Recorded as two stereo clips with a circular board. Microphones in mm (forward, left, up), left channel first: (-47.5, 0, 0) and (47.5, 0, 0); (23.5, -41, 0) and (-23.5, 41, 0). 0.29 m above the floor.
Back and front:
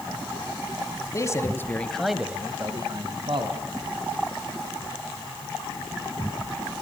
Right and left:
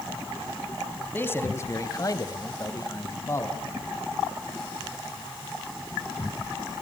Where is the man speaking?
125° right, 2.5 m; by 3.6 s straight ahead, 2.5 m.